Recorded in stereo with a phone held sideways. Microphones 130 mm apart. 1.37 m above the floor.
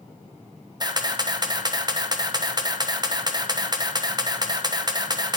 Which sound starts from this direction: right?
A camera shutter, at 0.8 s.